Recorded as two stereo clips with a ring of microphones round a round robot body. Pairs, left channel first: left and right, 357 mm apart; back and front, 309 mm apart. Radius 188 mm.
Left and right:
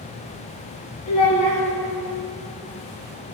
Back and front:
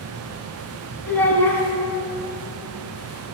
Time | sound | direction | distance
1.1 | a child speaking | 95° left | 3.5 m